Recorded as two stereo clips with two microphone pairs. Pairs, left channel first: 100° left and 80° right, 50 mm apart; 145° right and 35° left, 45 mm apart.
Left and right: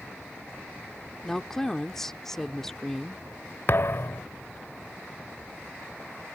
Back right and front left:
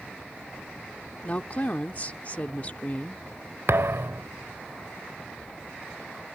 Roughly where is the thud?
Ahead left.